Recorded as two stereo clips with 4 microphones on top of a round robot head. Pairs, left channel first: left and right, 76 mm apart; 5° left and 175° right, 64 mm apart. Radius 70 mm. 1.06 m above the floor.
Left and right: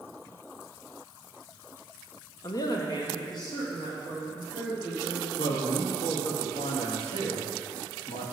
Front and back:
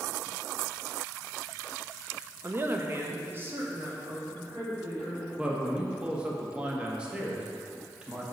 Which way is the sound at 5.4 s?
110° left.